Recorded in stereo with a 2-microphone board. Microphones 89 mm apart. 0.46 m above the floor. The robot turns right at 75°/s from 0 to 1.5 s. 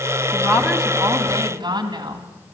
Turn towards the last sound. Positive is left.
turn(degrees=-120)